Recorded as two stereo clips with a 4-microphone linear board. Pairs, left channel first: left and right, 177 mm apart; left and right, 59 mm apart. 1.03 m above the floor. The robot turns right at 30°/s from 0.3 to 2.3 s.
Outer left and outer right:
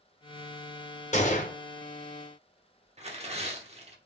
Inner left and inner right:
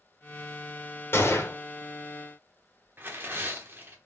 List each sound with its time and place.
1.1 s a gunshot: 40° left (ahead or behind), 0.9 m; by 1.6 s 45° left (ahead or behind), 0.9 m
3.0 s tearing paper: 35° right (ahead or behind), 0.9 m